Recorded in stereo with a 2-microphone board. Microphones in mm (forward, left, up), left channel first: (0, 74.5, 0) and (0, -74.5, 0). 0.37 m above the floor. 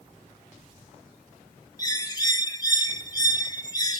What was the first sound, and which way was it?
A bird, 25° left (ahead or behind).